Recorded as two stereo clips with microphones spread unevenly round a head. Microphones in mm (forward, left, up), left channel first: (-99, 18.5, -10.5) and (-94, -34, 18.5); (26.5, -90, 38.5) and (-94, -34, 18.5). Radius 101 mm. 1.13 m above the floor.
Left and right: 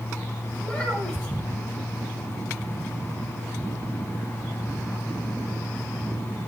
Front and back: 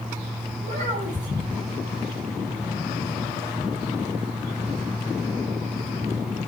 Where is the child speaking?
165° left, 6 m.